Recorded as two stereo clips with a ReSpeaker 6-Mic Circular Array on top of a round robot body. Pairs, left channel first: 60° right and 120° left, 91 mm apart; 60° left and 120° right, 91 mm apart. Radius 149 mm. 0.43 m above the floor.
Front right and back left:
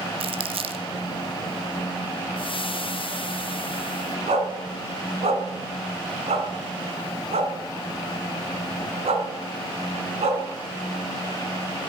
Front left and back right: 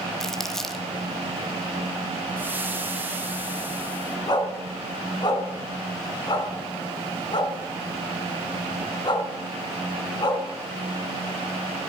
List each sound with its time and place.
0.2 s crumpling: 145° left, 1.1 m
2.4 s frying: 55° right, 1.8 m
4.3 s a dog barking: 105° left, 2 m